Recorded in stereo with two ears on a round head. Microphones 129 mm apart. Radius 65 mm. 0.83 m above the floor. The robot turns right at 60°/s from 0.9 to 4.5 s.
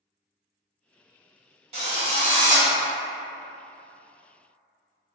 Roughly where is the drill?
Right.